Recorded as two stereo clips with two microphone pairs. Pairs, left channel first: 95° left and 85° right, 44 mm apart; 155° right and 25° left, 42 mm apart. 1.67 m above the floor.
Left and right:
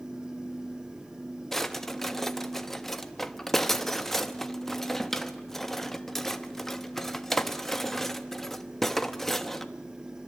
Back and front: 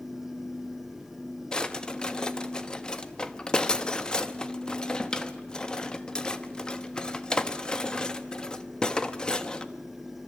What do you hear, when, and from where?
1.5 s a drawer: 165° left, 1.1 m